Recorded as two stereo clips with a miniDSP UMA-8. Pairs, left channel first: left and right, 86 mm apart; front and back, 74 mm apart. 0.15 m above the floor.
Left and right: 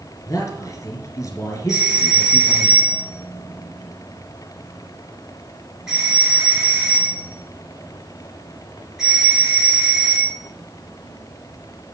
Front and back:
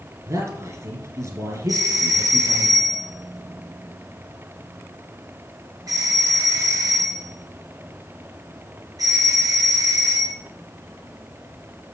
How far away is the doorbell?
About 4 m.